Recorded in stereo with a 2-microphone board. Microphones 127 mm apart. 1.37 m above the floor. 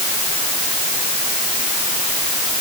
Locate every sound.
Only background noise.